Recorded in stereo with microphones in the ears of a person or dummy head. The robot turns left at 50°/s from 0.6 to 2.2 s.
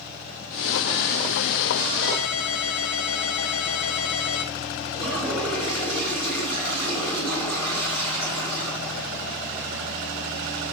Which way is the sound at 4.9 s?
5° left (ahead or behind).